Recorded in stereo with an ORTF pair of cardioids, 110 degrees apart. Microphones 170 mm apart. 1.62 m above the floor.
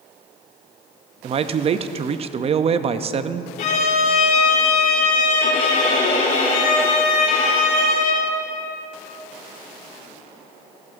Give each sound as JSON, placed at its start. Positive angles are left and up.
{"t": 1.2, "sound": "a man speaking", "azimuth_deg": -35, "distance_m": 0.6}
{"t": 3.6, "sound": "a violin", "azimuth_deg": 60, "distance_m": 3.5}